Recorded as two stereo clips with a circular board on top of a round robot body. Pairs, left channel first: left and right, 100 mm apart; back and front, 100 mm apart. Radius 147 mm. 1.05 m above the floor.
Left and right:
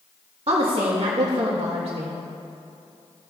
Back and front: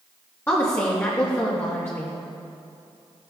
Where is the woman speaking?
115° right, 1.8 m.